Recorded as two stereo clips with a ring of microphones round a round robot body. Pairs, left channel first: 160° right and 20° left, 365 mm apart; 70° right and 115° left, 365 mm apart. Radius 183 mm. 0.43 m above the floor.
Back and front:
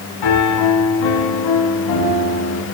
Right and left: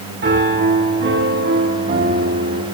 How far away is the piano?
About 3 m.